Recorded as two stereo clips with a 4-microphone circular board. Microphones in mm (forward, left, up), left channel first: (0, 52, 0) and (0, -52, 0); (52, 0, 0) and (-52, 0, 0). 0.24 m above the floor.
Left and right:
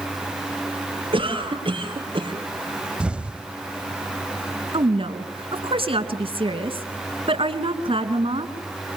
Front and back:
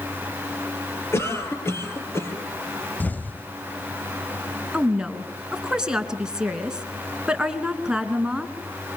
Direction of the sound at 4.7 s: 100° right.